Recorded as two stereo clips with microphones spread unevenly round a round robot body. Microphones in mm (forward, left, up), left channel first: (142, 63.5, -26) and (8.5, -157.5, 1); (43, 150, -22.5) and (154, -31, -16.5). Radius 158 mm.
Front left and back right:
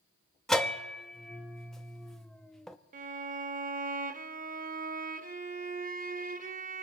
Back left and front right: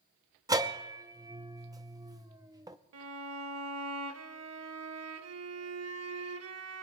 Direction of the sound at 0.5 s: 10° right.